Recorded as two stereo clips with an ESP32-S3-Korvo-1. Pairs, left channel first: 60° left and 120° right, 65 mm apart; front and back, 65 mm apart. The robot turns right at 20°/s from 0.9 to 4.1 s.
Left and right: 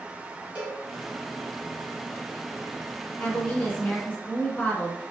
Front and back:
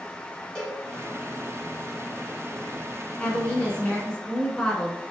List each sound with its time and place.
0.6 s a cowbell: 60° right, 1.6 m
3.2 s a woman speaking: 30° left, 1.1 m; by 5.1 s 50° left, 1.1 m